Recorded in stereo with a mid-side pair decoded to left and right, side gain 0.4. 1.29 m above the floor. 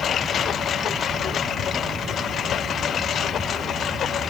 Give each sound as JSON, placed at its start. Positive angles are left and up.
{"t": 0.0, "sound": "a lawn mower", "azimuth_deg": 65}